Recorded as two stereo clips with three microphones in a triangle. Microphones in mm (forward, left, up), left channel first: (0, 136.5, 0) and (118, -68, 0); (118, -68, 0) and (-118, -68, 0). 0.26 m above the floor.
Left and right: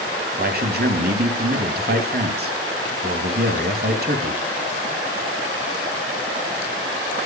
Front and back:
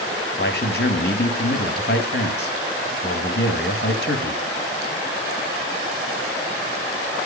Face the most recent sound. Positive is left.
turn(degrees=-25)